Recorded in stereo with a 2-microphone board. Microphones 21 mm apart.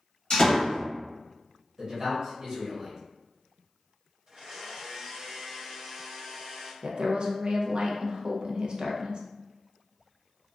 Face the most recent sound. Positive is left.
turn(degrees=-50)  # may be behind; listen again after turning